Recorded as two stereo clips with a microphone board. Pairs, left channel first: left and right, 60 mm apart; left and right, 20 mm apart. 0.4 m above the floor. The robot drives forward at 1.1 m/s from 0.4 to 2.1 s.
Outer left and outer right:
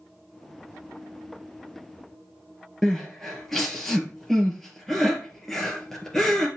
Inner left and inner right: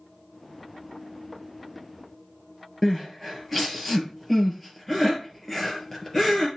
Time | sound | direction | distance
2.8 | crying | 5° left (ahead or behind) | 2 m